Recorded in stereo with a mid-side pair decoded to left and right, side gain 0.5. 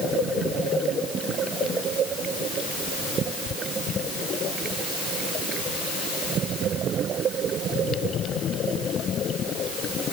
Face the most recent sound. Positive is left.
No sound to turn to.